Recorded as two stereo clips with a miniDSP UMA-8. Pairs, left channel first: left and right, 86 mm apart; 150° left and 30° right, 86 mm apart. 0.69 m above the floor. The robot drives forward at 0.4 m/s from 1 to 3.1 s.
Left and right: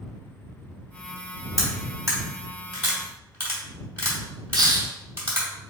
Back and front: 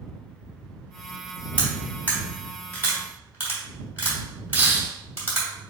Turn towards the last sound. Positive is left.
turn(degrees=-95)